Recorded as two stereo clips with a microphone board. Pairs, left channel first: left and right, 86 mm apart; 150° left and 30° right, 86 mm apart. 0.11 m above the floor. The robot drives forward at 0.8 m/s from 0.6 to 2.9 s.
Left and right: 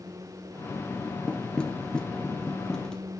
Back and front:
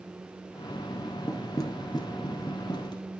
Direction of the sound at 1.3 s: 165° left.